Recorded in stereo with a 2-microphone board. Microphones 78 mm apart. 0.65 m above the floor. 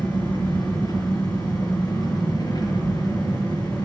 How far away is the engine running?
About 5 m.